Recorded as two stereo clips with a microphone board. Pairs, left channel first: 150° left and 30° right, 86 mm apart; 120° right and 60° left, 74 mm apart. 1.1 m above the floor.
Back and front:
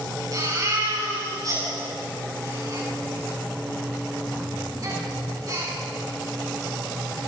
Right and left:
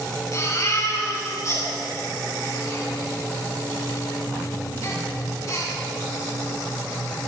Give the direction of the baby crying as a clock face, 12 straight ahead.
3 o'clock.